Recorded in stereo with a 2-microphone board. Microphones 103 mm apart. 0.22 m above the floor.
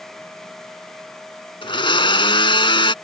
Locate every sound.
1.6 s a blender: 55° left (ahead or behind)